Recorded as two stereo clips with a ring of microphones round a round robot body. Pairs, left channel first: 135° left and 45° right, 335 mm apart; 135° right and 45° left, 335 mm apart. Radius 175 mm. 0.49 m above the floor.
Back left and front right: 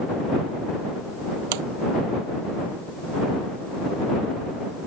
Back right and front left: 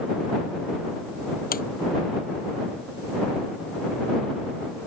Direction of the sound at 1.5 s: 70° right.